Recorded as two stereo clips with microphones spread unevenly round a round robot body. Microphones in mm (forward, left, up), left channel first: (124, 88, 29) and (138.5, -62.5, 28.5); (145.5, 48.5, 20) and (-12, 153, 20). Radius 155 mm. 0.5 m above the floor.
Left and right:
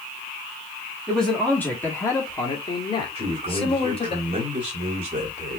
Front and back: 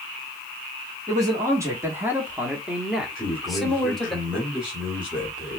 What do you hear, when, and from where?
1.1 s a man speaking: straight behind, 1.0 m; by 4.2 s 55° left, 1.7 m
3.1 s a man speaking: 130° right, 1.5 m